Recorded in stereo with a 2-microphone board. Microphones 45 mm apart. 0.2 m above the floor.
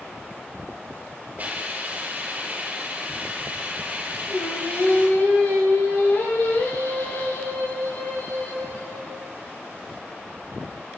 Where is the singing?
75° left (ahead or behind), 6 m.